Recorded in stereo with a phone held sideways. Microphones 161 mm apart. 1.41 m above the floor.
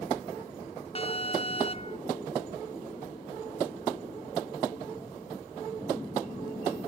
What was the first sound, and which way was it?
An alarm, 40° left (ahead or behind).